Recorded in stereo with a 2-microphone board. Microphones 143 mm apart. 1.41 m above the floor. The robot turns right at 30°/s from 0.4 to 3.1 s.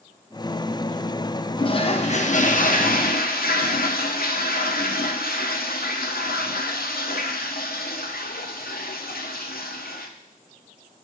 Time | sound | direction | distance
1.6 | a toilet flushing | 30° left | 0.7 m